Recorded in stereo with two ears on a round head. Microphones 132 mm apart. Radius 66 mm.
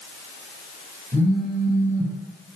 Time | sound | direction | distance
1.1 | a phone buzzing | 60° right (ahead or behind) | 1.3 m